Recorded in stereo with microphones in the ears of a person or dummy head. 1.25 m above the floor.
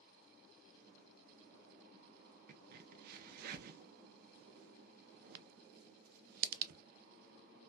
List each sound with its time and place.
2.5 s a crack: 45° right (ahead or behind), 0.6 m